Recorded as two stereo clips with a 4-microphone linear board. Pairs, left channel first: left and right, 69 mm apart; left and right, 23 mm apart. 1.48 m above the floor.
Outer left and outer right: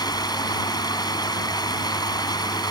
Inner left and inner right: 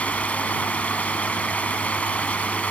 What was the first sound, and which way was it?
Running water, 85° left.